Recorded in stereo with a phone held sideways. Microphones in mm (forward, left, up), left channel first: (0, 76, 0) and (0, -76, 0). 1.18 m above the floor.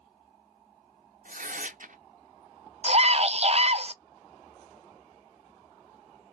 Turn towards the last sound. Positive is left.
turn(degrees=-45)  # may be behind; listen again after turning